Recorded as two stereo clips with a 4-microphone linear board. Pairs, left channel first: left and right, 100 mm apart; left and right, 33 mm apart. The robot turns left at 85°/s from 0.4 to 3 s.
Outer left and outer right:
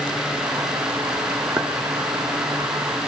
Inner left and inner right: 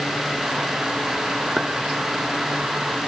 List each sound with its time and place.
1.6 s a clink: 20° right (ahead or behind), 1.6 m; by 1.7 s 10° right (ahead or behind), 1.6 m